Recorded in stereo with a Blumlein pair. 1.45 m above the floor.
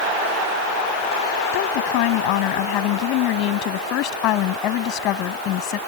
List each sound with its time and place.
1.5 s a woman speaking: 45° left; by 5.8 s 35° left